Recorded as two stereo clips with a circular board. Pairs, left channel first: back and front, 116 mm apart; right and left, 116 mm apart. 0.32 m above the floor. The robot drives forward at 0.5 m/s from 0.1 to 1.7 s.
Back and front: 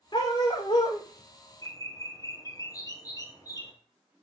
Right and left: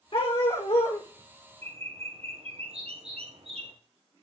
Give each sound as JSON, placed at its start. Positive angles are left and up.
{"t": 0.1, "sound": "a dog barking", "azimuth_deg": -130, "distance_m": 7.5}
{"t": 1.6, "sound": "a bird", "azimuth_deg": 120, "distance_m": 2.0}